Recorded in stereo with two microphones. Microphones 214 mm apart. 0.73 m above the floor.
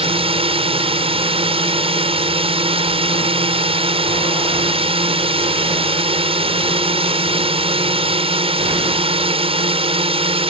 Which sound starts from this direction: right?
A drone, at 0.0 s.